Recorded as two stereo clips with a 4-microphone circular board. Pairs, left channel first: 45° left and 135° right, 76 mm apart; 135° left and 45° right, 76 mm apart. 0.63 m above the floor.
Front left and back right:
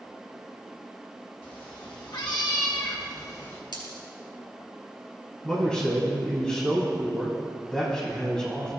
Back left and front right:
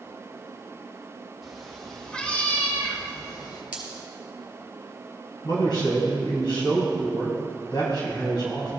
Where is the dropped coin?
30° left, 3 m.